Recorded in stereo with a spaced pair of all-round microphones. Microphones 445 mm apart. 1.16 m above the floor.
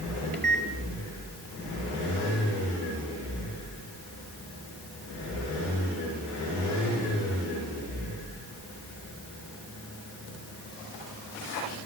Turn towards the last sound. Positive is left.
turn(degrees=-25)  # may be behind; listen again after turning